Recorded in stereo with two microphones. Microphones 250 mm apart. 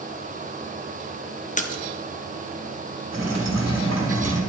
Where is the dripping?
75° right (ahead or behind), 2.5 m.